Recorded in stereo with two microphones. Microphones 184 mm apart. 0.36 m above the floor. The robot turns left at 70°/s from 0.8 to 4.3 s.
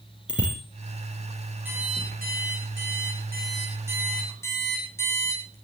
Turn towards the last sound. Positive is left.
turn(degrees=165)